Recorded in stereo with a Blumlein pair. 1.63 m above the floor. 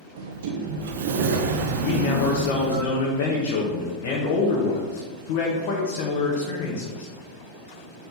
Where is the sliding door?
55° right, 0.7 m.